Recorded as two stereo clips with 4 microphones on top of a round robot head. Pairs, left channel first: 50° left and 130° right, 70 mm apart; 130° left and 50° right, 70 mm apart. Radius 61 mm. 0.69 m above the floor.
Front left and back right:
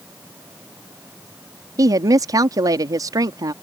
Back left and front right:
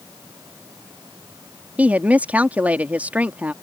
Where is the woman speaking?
115° right.